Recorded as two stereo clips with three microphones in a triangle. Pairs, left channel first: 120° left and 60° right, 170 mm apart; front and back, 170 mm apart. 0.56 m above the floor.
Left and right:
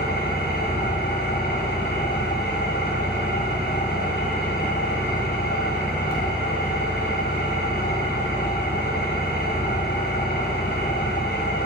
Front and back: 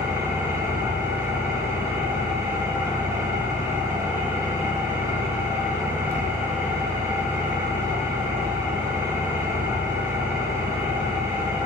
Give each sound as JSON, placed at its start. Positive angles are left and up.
{"t": 0.0, "sound": "an engine running", "azimuth_deg": 105, "distance_m": 4.5}